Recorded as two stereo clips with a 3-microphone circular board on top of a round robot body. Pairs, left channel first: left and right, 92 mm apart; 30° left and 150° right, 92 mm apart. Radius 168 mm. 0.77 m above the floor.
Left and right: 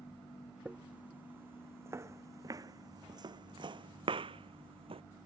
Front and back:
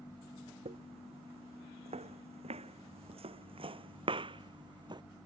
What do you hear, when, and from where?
0.7 s footsteps: 170° right; by 5.0 s 110° right